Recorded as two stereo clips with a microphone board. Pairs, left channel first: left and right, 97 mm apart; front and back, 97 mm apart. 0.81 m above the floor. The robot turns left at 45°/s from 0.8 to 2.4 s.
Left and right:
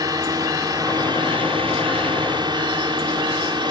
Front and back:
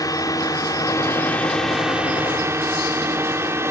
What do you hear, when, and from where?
0.0 s a drone: 50° right; by 3.7 s 120° right